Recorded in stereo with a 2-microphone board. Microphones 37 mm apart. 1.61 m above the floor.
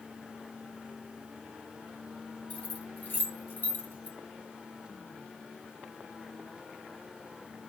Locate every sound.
2.5 s keys jangling: 40° left (ahead or behind), 1.9 m; by 4.2 s 60° left (ahead or behind), 2 m